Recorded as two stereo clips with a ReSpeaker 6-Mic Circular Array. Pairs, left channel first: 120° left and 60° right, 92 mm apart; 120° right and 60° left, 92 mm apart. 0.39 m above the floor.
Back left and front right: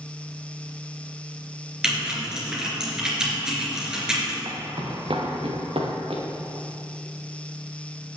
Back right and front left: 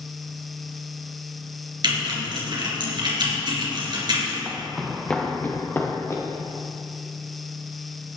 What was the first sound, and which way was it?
Typing on a keyboard, 25° left.